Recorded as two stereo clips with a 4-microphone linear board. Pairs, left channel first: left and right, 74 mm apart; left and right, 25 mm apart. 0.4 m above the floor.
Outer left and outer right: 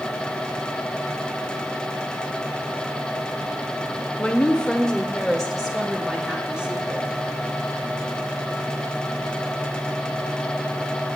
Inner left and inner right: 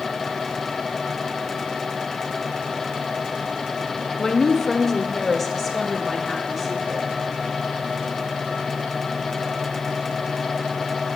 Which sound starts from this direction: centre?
A woman speaking, at 4.2 s.